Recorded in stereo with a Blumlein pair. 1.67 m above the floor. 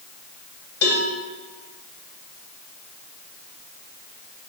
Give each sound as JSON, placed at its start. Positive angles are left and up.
{"t": 0.8, "sound": "a cowbell", "azimuth_deg": 65, "distance_m": 2.0}